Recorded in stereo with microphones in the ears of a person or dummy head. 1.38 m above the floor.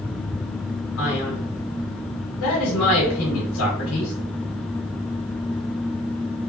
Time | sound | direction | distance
1.0 | a man speaking | 75° left (ahead or behind) | 1.2 m